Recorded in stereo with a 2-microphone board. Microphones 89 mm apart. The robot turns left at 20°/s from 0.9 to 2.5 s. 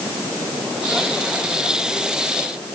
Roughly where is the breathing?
I don't hear breathing.